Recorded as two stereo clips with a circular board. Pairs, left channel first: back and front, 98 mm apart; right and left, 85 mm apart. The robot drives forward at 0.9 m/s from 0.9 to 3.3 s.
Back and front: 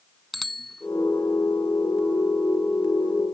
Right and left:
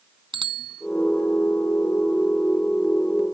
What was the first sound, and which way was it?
A bicycle bell, 90° left.